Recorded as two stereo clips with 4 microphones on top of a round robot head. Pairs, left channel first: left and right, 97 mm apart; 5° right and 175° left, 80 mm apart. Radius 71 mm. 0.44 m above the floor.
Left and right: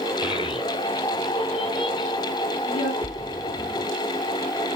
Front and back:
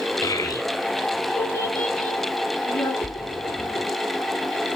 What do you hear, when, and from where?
0.2 s a child speaking: 45° left, 2.5 m; by 2.9 s 65° left, 4 m
3.0 s a splash: 65° left, 5.5 m